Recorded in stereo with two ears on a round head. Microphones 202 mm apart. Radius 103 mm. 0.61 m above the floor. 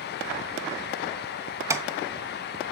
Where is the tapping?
15° right (ahead or behind), 1.1 m.